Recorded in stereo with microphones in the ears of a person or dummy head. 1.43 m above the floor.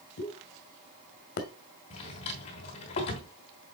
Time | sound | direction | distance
0.2 | a pop | 45° left (ahead or behind) | 1.4 m
1.9 | a drawer | 25° left (ahead or behind) | 1.2 m